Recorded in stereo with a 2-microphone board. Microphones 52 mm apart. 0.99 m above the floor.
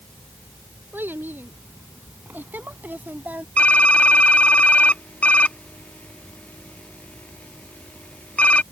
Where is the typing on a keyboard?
25° left (ahead or behind).